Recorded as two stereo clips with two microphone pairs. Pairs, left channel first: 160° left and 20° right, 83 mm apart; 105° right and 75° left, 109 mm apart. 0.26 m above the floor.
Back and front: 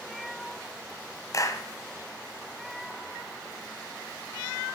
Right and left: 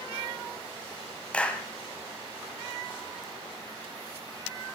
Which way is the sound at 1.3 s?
Straight behind.